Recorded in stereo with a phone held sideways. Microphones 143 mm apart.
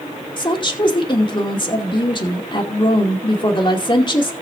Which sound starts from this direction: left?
A woman speaking, at 0.4 s.